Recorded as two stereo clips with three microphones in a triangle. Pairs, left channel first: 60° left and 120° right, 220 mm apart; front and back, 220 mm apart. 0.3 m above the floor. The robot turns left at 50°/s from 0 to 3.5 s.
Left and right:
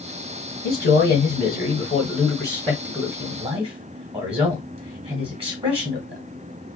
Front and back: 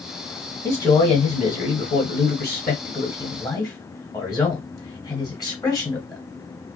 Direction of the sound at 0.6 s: 80° left.